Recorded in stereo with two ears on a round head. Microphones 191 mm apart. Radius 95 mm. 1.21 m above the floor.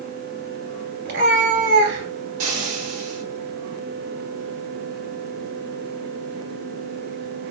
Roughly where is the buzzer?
I don't hear a buzzer.